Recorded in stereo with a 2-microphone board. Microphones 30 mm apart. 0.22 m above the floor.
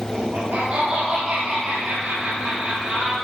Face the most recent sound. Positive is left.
turn(degrees=-75)  # may be behind; listen again after turning